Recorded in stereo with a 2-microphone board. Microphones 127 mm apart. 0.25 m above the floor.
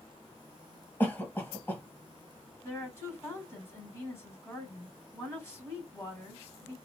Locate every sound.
1.0 s a cough: 15° left (ahead or behind), 1.1 m
2.6 s a woman speaking: 20° left (ahead or behind), 1.9 m